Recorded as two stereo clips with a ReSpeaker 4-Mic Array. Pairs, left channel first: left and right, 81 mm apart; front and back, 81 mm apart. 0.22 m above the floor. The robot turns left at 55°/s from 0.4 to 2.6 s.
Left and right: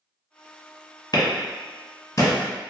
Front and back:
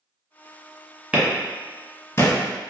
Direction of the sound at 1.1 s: 110° left.